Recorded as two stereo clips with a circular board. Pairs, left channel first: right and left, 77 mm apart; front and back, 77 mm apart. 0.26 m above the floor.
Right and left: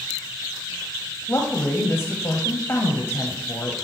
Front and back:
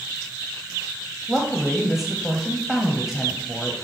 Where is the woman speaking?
95° right, 1.0 m.